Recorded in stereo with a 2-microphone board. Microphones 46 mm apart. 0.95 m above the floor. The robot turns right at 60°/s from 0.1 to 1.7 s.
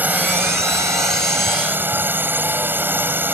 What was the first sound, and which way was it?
A drone, 140° right.